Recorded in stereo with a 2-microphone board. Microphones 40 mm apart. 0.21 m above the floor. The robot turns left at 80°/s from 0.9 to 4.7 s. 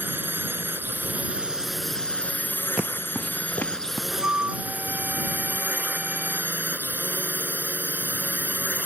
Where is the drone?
105° right; by 8.9 s 50° right.